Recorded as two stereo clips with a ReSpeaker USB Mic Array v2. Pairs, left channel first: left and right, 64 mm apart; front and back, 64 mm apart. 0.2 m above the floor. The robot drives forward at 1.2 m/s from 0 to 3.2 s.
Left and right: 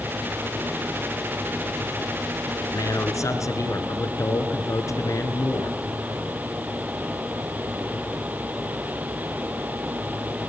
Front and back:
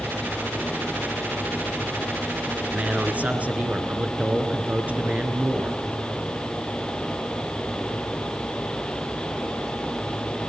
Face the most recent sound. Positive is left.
turn(degrees=115)